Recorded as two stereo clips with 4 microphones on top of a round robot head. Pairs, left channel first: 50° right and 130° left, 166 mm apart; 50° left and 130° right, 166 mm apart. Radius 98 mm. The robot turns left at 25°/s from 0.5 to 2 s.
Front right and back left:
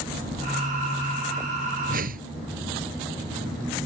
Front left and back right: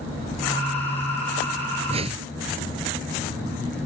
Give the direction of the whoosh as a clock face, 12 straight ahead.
6 o'clock.